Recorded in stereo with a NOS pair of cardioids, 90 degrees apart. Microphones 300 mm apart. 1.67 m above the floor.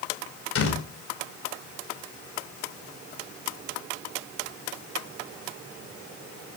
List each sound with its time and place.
0.6 s a door slam: 50° left, 5 m